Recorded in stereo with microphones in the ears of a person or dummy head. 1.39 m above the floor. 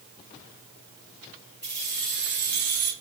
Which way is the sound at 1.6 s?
10° left (ahead or behind).